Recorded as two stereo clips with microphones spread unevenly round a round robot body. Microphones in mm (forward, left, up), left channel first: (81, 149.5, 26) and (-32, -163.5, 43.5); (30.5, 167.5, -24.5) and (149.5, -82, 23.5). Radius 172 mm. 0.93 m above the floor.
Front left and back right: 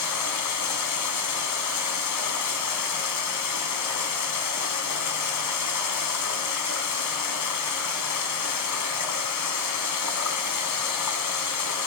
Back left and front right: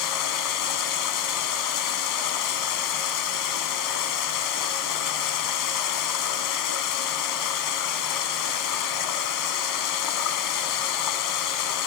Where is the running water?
110° left, 3 m.